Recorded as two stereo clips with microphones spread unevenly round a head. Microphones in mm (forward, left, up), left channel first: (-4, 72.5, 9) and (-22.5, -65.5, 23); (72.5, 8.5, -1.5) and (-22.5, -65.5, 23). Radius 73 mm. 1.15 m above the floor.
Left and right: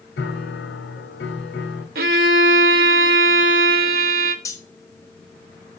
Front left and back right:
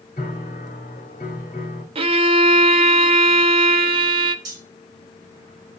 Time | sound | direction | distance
0.2 | a piano | 90° left | 1.8 m
1.9 | a violin | 110° right | 0.9 m
4.5 | cutlery clinking | 150° left | 1.5 m